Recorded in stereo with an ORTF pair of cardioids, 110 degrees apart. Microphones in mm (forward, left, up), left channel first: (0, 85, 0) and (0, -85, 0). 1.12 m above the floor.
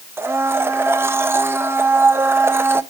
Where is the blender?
15° right, 0.8 m.